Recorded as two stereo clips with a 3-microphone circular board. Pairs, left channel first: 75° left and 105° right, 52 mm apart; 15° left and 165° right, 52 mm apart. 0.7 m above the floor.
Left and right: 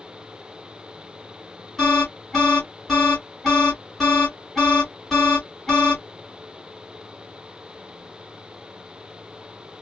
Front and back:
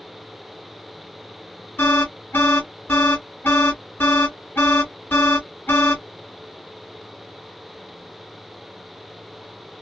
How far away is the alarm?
About 1.6 m.